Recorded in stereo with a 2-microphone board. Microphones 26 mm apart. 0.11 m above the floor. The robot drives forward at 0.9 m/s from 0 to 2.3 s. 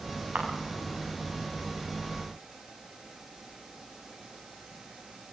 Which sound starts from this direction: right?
A camera shutter, at 0.3 s.